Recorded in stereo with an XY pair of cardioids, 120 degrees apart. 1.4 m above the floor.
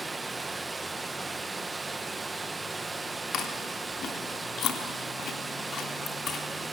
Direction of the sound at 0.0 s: 20° right.